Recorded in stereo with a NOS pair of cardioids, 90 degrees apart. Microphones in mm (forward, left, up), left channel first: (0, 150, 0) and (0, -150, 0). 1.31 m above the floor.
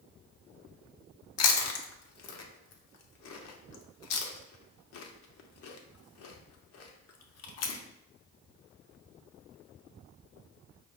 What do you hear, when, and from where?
1.4 s chewing: 55° left, 0.8 m